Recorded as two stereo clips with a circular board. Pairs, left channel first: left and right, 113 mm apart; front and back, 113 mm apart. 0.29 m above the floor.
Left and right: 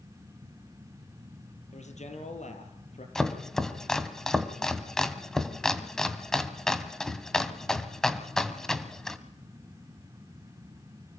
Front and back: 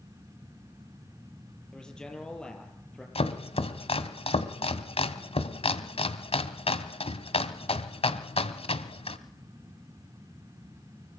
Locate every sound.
1.7 s a man speaking: 85° left, 6.5 m
3.1 s chopping: 5° left, 1.8 m